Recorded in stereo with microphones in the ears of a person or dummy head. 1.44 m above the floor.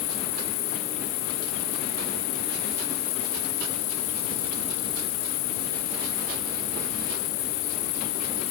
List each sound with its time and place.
0.0 s an insect: 70° left (ahead or behind)